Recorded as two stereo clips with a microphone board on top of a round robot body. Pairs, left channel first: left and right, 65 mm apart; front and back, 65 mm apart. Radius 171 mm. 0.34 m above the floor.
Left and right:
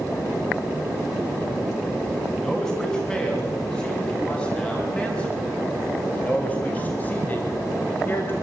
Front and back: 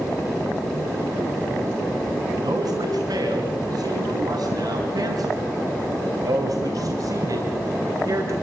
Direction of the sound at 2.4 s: 170° left.